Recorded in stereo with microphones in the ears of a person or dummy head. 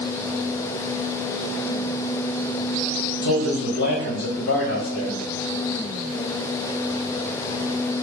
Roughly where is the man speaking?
Left.